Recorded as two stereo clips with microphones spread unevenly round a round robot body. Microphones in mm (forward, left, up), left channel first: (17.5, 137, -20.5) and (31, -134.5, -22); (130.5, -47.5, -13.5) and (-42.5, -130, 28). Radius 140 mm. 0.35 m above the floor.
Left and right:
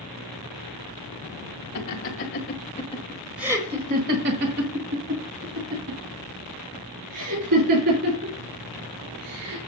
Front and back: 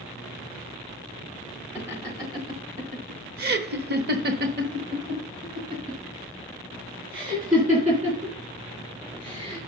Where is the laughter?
115° left, 1.7 m; by 9.7 s 100° right, 5.5 m.